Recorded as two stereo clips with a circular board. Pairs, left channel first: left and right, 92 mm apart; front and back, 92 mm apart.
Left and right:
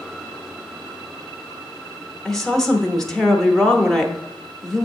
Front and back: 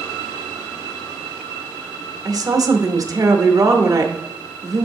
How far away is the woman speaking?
About 0.8 m.